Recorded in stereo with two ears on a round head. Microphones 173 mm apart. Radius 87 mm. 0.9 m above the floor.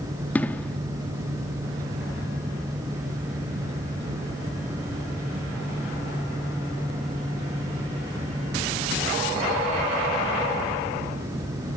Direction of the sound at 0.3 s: 10° left (ahead or behind).